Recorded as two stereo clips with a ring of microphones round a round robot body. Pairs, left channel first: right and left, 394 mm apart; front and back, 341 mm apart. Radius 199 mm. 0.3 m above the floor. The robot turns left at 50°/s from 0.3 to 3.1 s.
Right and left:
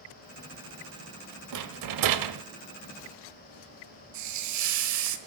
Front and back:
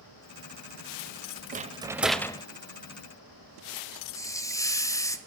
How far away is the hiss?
About 1.2 m.